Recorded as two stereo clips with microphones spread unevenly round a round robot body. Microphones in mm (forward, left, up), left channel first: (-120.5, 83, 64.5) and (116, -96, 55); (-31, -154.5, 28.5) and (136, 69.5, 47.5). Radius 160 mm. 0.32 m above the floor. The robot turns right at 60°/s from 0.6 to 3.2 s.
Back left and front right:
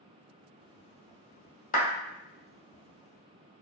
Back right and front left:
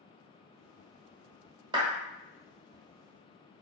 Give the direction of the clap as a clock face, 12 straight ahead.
8 o'clock.